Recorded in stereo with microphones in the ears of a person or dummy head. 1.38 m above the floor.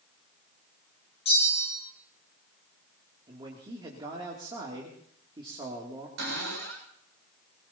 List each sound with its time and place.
1.2 s a bell: 35° left (ahead or behind), 4 m
3.3 s a man speaking: 25° right (ahead or behind), 2.5 m
6.2 s a cupboard door: 70° right (ahead or behind), 6.5 m